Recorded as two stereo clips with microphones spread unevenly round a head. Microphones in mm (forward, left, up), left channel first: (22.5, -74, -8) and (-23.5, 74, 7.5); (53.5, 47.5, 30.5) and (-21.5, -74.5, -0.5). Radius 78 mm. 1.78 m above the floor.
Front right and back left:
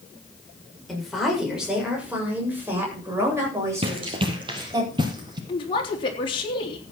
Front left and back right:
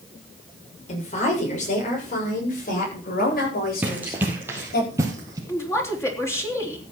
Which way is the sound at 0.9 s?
20° left.